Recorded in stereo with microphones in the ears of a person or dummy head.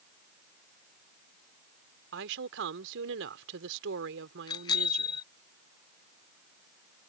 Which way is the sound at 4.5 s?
25° left (ahead or behind).